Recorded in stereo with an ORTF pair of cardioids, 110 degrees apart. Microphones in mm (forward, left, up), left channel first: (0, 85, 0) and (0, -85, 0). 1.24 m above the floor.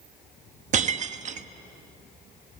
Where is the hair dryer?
No hair dryer in this recording.